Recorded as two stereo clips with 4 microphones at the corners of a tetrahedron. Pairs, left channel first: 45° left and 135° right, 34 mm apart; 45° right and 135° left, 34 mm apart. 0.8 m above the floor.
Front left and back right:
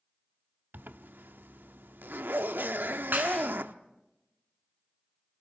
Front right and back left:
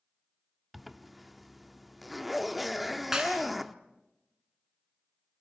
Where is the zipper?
135° right, 0.8 m.